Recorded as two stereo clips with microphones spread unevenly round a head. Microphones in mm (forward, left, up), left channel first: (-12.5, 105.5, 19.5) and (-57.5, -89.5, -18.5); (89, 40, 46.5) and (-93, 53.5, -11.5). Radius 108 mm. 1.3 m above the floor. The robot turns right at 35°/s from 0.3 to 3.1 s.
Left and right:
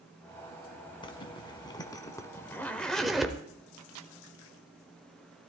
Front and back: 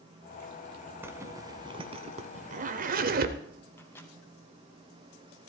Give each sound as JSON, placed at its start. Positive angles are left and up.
{"t": 1.0, "sound": "a zipper", "azimuth_deg": 75, "distance_m": 1.1}
{"t": 3.8, "sound": "a microwave", "azimuth_deg": -80, "distance_m": 0.9}